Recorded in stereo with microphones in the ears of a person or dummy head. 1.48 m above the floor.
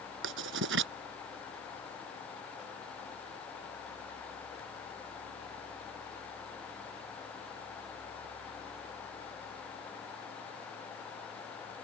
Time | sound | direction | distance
0.2 | writing | 80° right | ?